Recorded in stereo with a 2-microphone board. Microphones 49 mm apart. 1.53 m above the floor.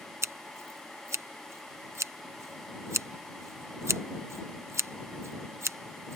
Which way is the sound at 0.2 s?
70° right (ahead or behind).